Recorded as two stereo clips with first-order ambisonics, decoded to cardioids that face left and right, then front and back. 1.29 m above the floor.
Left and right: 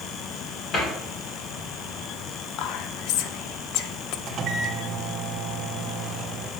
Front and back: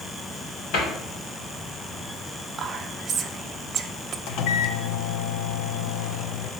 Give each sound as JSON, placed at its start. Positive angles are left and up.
{"t": 0.7, "sound": "a cupboard door", "azimuth_deg": 30, "distance_m": 2.5}
{"t": 2.6, "sound": "whispering", "azimuth_deg": 115, "distance_m": 0.6}
{"t": 4.3, "sound": "a microwave", "azimuth_deg": -30, "distance_m": 0.6}